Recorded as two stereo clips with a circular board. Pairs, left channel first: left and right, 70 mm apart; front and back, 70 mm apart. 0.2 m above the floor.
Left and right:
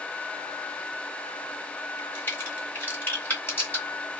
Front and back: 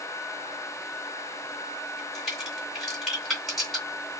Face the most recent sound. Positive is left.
turn(degrees=95)